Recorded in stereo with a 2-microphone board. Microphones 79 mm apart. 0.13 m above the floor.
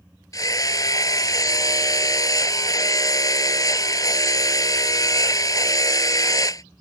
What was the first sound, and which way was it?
Hammering, 50° left (ahead or behind).